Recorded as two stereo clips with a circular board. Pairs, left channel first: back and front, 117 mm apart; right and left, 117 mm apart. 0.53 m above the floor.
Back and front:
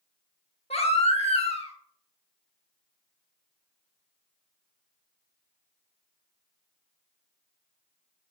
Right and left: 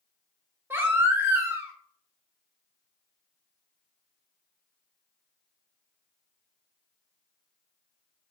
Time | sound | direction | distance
0.7 | a baby crying | 160° left | 0.7 m